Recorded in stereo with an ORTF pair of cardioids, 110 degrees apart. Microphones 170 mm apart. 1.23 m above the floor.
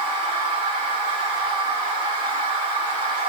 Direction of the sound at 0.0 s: 55° right.